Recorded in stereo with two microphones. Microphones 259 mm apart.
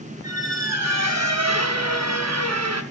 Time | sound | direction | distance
0.2 | a squeak | 80° right | 0.8 m